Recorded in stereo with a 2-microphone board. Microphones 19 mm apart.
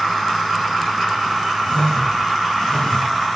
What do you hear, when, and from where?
1.6 s a whoosh: 60° left (ahead or behind), 3.5 m